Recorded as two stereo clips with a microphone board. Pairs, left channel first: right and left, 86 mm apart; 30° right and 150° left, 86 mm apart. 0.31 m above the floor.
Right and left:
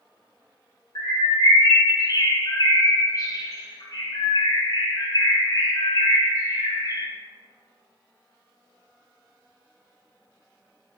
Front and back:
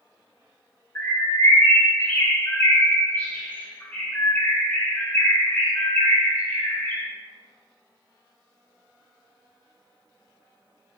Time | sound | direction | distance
0.9 | a bird | 90° right | 2.5 m